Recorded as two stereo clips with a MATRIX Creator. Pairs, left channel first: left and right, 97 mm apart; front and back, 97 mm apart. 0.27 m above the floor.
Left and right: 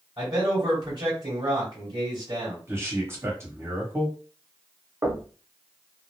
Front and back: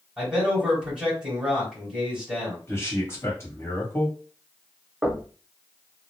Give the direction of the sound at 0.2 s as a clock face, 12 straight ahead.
3 o'clock.